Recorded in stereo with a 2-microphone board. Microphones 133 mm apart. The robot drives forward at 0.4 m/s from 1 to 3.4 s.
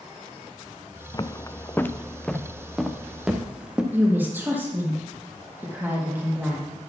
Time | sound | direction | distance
1.1 | footsteps | 30° left (ahead or behind) | 0.6 m
3.9 | a woman speaking | 15° right (ahead or behind) | 3 m